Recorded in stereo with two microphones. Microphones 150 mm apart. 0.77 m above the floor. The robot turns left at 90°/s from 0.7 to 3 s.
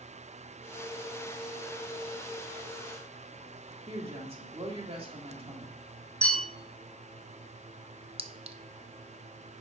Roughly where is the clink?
Right.